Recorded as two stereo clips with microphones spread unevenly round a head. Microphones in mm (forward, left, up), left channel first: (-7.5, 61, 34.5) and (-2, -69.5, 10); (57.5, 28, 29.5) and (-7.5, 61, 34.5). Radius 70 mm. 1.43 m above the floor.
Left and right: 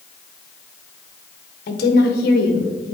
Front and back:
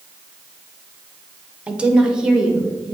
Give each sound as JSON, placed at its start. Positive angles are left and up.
{"t": 1.7, "sound": "a woman speaking", "azimuth_deg": 80, "distance_m": 1.0}